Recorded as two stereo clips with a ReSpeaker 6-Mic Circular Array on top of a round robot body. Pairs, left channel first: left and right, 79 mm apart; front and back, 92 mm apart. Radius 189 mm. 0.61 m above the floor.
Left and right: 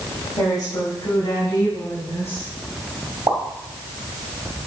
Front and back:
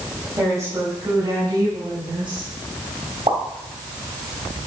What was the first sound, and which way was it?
A woman speaking, 125° left.